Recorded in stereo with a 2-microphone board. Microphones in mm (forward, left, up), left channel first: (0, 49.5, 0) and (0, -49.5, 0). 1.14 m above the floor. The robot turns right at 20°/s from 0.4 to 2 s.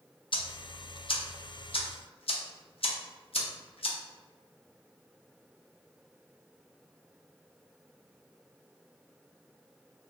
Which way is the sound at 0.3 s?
55° left (ahead or behind).